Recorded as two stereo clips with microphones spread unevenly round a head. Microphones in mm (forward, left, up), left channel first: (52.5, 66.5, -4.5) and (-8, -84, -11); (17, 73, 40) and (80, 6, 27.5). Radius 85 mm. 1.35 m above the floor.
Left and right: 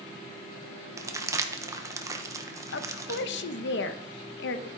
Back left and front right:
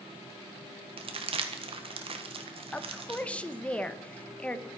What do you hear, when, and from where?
1.0 s crumpling: 40° right, 1.4 m
2.7 s a woman speaking: 55° left, 1.1 m